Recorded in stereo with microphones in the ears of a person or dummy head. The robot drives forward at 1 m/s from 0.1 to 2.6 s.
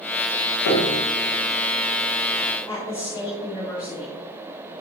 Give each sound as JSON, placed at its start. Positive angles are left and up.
{"t": 0.7, "sound": "a piano", "side_deg": 75, "distance_m": 1.6}
{"t": 2.7, "sound": "a woman speaking", "side_deg": 20, "distance_m": 3.5}